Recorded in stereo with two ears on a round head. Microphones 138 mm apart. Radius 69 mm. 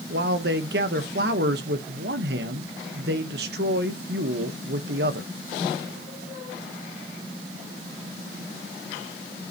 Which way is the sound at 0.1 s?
70° right (ahead or behind).